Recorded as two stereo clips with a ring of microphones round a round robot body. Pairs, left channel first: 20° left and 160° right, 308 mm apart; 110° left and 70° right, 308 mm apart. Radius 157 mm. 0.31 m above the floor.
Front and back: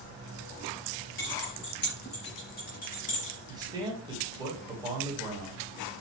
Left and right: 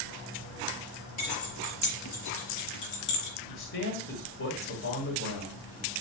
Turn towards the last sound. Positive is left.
turn(degrees=135)